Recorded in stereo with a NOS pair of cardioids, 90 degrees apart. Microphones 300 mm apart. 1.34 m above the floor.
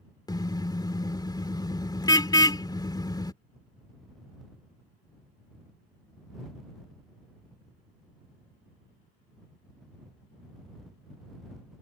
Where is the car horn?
15° left.